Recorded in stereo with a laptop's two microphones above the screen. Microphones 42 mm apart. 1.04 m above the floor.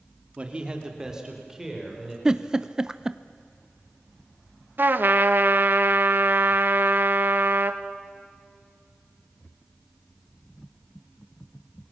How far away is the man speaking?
About 1.9 m.